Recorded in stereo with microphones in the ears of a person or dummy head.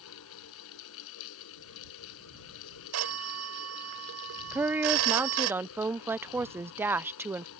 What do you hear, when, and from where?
0.0 s a fan: 70° left (ahead or behind)
2.9 s a phone ringing: 85° right
4.5 s a woman speaking: 5° right (ahead or behind)